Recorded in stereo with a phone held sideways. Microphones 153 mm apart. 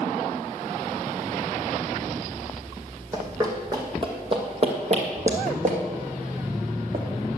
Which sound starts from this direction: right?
Running footsteps, at 3.1 s.